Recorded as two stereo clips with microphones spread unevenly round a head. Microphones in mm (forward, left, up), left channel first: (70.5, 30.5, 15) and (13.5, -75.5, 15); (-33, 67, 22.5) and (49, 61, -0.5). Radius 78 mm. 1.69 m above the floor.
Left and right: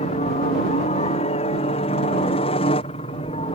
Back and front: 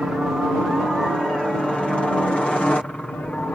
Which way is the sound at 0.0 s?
70° left.